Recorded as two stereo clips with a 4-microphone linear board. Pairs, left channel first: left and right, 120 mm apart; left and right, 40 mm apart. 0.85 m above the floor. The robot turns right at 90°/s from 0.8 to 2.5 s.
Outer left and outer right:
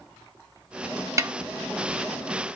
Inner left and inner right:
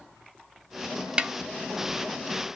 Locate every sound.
1.2 s a snare drum: 25° right (ahead or behind), 0.9 m; by 1.3 s 40° right (ahead or behind), 0.9 m